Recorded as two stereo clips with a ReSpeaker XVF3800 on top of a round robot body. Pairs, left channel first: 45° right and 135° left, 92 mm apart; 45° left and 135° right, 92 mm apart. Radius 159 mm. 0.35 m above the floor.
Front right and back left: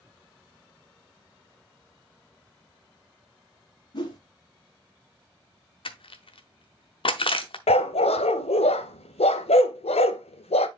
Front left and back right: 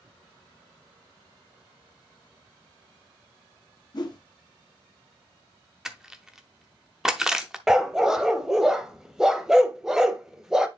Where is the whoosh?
Straight ahead, 1.8 m.